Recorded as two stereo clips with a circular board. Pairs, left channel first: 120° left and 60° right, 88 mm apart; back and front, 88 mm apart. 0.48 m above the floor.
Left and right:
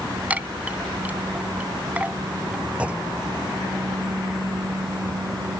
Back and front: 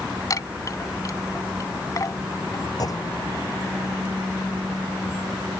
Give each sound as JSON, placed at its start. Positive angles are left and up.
{"t": 0.3, "sound": "a chime", "azimuth_deg": -130}
{"t": 2.8, "sound": "a clunk", "azimuth_deg": -135}